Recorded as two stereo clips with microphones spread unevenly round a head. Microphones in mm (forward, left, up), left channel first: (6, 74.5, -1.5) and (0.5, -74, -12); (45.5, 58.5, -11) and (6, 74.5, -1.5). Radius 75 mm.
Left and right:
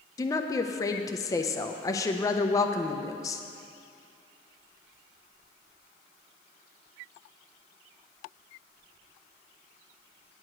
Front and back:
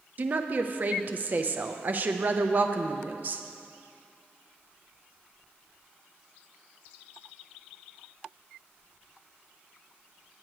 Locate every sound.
0.2 s a woman speaking: 140° left, 0.5 m